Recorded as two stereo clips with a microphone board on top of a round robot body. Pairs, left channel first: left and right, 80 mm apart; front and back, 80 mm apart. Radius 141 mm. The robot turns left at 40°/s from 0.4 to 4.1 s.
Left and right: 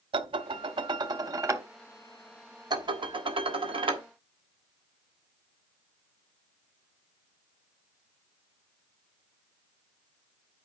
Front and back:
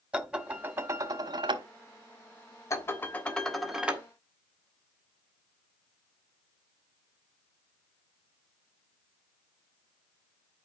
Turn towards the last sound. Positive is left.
turn(degrees=-110)